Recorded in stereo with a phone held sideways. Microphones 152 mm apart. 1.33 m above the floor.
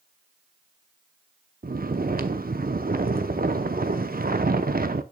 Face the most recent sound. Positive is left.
turn(degrees=-75)  # may be behind; listen again after turning